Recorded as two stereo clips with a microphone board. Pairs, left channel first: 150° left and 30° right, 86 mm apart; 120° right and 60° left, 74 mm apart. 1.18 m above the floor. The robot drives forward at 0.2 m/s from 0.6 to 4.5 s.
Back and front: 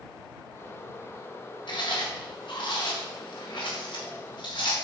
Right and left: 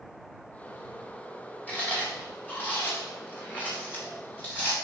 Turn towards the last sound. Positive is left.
turn(degrees=175)